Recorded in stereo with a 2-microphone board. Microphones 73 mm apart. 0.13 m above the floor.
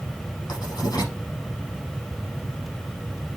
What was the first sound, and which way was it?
Writing, 55° left (ahead or behind).